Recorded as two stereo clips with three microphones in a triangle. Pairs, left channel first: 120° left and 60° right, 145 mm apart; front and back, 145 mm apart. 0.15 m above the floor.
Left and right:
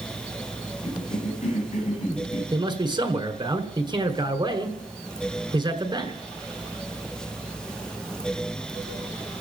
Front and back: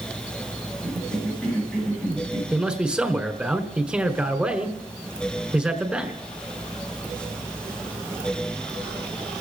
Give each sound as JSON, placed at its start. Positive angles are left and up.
{"t": 0.8, "sound": "a cough", "azimuth_deg": 85, "distance_m": 9.5}
{"t": 2.5, "sound": "a man speaking", "azimuth_deg": -100, "distance_m": 1.4}